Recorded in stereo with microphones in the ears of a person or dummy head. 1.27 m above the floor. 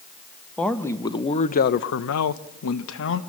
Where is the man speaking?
5° left (ahead or behind), 1.2 m; by 3.2 s 65° left (ahead or behind), 1.4 m.